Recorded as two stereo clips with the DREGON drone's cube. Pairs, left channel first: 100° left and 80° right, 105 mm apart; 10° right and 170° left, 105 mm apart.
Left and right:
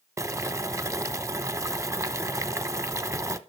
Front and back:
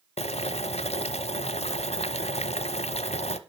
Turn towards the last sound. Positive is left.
turn(degrees=-15)